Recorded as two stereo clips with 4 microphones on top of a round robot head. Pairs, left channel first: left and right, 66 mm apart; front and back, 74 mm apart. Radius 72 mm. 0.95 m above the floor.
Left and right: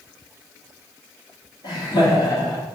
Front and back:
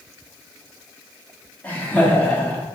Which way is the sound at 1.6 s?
70° left.